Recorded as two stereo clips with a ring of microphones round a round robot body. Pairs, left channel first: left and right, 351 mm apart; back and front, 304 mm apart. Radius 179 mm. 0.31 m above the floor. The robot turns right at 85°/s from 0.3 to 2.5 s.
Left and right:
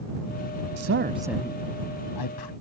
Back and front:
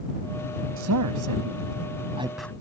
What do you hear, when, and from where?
0.8 s a man speaking: 50° right; by 2.5 s 95° left